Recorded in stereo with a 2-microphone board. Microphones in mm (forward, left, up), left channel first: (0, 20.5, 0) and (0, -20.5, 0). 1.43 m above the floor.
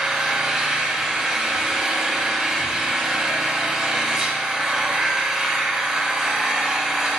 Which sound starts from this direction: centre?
An engine running, at 0.0 s.